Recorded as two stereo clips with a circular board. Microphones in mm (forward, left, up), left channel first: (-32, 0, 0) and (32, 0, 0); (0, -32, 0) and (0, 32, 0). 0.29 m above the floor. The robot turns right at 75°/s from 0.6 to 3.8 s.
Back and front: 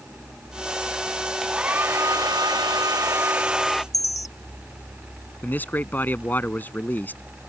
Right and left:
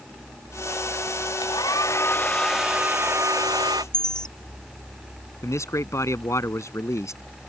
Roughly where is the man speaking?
Behind right.